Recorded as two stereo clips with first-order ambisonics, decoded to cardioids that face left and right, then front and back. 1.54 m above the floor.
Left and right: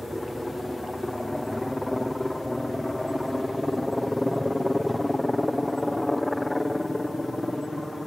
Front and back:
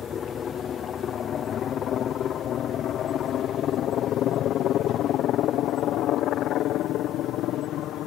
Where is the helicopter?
10° left; by 8.1 s 5° left.